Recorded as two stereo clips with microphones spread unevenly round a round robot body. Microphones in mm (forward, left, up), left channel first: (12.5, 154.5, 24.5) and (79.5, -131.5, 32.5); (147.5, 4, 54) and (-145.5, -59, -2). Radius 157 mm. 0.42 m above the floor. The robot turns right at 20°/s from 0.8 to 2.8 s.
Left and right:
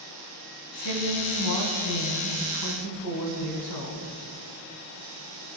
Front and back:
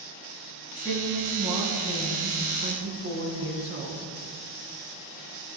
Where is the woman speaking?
95° left, 4.5 m; by 4.1 s 135° left, 4.5 m.